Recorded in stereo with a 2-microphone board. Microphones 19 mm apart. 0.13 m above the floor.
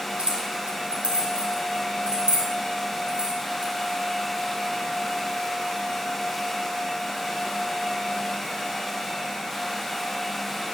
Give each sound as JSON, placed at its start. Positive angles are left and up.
{"t": 0.2, "sound": "keys jangling", "side_deg": -60, "distance_m": 3.0}